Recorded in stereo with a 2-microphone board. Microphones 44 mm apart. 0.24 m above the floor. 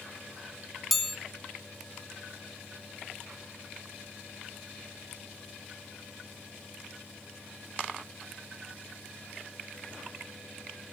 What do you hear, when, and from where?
0.9 s a chime: 5° right (ahead or behind), 0.8 m